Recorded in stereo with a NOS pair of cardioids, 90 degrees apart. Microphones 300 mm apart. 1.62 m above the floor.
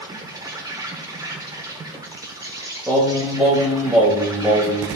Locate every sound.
0.0 s an insect: 10° right, 1.1 m
2.9 s singing: 5° right, 2 m